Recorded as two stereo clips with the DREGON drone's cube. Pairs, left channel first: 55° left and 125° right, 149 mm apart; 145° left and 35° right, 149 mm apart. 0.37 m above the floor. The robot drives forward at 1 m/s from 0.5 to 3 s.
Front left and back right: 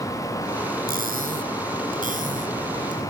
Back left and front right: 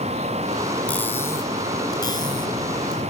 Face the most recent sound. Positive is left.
turn(degrees=-160)